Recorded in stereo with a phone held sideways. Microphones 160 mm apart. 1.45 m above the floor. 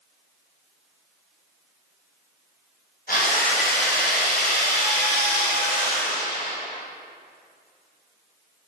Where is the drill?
60° left (ahead or behind), 1.0 m.